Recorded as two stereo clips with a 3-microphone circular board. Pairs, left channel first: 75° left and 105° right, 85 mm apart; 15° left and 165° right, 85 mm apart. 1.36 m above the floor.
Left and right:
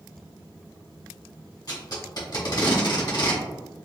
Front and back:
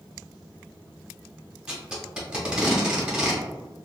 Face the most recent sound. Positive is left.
turn(degrees=115)